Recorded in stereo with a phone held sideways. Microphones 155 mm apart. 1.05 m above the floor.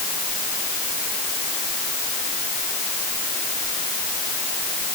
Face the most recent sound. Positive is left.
No sound to turn to.